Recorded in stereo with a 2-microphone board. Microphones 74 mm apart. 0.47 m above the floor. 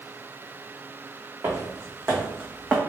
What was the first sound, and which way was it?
Footsteps, 40° right (ahead or behind).